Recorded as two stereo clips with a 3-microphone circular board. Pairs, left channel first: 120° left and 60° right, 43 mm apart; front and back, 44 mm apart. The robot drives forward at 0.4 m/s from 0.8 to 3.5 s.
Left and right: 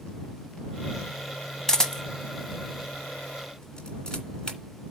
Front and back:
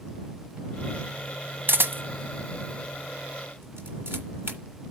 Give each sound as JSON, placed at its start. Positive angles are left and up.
{"t": 1.7, "sound": "a camera shutter", "azimuth_deg": -165, "distance_m": 1.3}